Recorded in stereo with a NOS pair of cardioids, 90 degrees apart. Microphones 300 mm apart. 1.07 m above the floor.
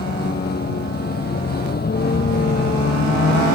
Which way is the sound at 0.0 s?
30° left.